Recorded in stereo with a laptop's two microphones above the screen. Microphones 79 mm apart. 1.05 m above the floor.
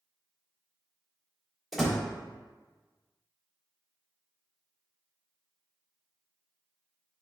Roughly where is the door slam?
Centre.